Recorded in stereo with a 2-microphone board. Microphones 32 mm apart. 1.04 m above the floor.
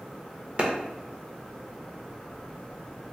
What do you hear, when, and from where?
0.6 s a clap: 40° right (ahead or behind), 0.6 m